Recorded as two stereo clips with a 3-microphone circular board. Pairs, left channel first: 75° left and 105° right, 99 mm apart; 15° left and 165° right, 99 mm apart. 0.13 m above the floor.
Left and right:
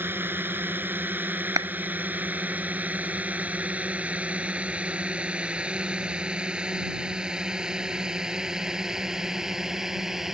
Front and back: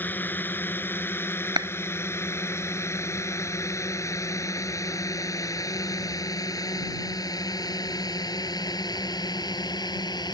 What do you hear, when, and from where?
0.0 s a drone: 45° right; by 10.3 s 20° right
1.6 s a clap: 140° right